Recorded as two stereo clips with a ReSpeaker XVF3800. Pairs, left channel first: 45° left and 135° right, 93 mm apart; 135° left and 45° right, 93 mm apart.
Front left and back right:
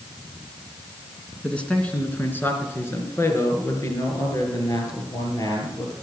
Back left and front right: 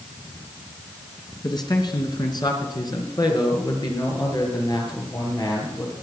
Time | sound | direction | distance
1.4 | a man speaking | 120° left | 2.5 m